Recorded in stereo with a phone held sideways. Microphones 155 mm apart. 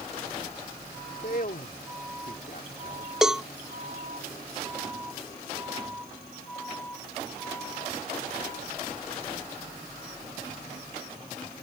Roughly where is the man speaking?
Left.